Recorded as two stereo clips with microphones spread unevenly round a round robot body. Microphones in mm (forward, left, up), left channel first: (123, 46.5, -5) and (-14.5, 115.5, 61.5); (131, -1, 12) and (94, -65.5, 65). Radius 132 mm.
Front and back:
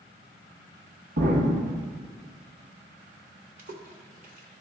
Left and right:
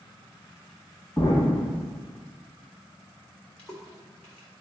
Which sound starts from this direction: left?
A splash, at 3.6 s.